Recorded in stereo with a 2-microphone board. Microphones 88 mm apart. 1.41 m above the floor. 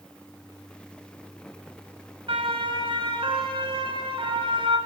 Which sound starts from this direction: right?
A siren, at 2.3 s.